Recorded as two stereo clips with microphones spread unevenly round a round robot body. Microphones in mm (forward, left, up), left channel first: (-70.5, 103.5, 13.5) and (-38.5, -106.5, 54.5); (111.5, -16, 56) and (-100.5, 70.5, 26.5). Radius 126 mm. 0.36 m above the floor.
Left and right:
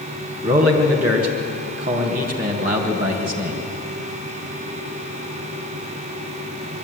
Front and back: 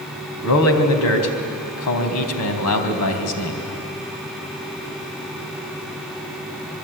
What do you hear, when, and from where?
0.4 s a man speaking: 20° right, 3.5 m